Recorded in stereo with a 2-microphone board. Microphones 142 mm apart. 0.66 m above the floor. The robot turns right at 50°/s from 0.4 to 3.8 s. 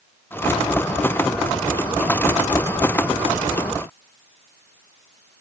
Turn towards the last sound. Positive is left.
No sound to turn to.